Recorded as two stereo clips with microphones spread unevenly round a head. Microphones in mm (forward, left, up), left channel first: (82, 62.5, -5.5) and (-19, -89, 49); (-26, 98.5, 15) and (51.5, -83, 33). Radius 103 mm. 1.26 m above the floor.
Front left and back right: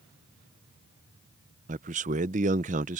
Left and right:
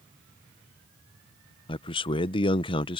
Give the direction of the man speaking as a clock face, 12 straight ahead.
6 o'clock.